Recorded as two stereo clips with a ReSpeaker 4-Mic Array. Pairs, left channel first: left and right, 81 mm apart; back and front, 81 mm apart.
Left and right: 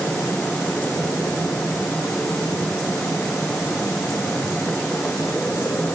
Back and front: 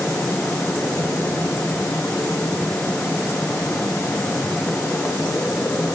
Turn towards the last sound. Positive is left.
No sound to turn to.